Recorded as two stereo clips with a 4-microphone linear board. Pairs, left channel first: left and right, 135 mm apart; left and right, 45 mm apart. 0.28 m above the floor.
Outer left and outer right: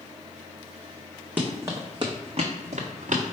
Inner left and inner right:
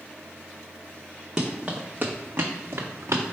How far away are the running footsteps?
About 1.2 m.